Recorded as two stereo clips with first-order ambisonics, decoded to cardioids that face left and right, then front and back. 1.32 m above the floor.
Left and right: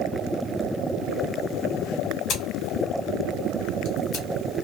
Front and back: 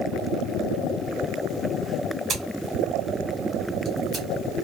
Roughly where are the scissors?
Behind left.